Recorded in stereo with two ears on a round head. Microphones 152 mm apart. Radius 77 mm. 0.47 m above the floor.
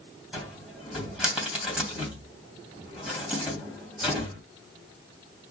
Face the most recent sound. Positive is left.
turn(degrees=-5)  # may be behind; listen again after turning